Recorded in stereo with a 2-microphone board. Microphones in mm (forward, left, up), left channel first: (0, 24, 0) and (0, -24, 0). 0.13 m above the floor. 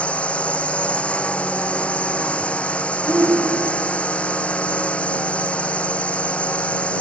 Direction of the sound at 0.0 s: 25° left (ahead or behind).